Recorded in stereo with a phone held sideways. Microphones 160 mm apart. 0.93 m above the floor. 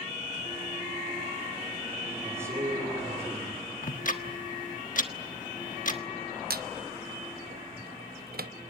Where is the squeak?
75° right (ahead or behind), 0.7 m.